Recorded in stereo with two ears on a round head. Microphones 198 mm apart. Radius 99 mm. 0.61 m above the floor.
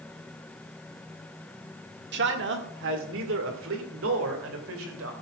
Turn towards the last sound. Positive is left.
turn(degrees=-65)  # may be behind; listen again after turning